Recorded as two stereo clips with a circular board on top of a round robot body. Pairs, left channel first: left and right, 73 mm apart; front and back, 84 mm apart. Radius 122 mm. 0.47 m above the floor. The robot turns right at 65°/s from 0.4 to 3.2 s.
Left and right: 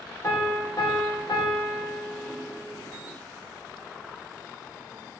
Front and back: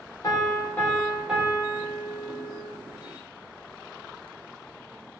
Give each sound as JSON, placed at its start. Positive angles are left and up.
{"t": 0.2, "sound": "a piano", "azimuth_deg": 40, "distance_m": 1.6}